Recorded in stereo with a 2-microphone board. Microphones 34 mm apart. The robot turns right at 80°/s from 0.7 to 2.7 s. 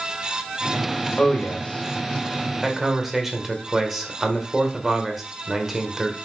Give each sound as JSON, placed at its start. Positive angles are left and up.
{"t": 1.2, "sound": "a man speaking", "azimuth_deg": 65, "distance_m": 1.3}